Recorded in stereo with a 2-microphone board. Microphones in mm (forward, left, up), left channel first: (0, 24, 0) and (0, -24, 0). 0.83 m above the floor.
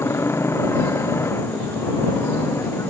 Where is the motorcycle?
70° left (ahead or behind).